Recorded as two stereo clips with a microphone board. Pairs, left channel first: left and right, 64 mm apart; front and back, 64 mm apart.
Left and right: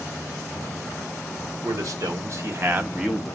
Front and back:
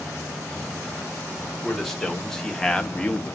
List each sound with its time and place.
1.6 s a man speaking: 85° right, 1.4 m; by 3.4 s 35° left, 0.6 m